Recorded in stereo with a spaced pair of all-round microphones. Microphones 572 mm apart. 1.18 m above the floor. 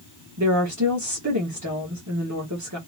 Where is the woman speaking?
30° right (ahead or behind), 1.4 m.